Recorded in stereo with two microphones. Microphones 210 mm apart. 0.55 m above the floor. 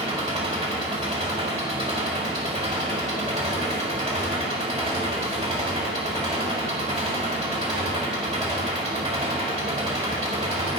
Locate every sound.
0.0 s an engine running: 25° right (ahead or behind), 1.7 m